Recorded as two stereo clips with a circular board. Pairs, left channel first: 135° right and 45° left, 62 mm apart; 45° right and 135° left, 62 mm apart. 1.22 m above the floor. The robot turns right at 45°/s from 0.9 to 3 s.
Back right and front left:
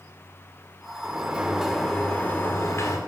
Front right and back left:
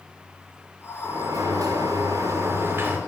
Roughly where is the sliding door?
Left.